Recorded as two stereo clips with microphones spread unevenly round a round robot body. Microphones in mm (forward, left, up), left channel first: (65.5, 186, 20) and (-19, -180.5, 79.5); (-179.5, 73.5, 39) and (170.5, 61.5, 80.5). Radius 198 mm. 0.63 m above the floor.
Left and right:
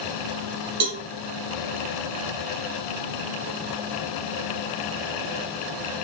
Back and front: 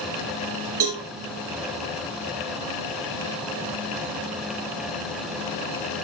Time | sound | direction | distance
0.8 | a cowbell | 60° right | 4.5 m